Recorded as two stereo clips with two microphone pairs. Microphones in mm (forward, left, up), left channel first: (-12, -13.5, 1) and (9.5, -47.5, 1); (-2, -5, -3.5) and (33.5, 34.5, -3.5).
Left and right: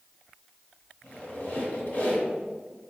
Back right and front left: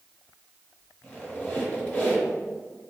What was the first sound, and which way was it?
A squeak, 170° left.